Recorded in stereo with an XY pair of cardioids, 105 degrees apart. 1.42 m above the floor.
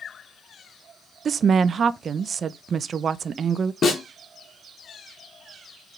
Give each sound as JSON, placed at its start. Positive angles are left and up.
{"t": 1.2, "sound": "a woman speaking", "azimuth_deg": -45, "distance_m": 0.9}
{"t": 3.8, "sound": "a snare drum", "azimuth_deg": 50, "distance_m": 4.0}